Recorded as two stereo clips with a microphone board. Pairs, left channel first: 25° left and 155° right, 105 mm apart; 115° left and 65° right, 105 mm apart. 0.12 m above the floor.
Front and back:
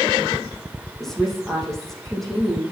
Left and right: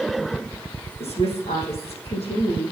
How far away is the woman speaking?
About 5.5 m.